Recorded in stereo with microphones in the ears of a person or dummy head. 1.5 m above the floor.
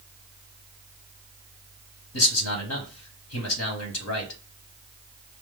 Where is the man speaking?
85° left, 1.2 m.